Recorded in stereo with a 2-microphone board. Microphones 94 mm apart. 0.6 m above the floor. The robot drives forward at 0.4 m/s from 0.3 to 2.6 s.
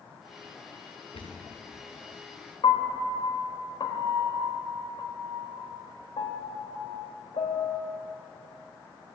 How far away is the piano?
About 1.3 m.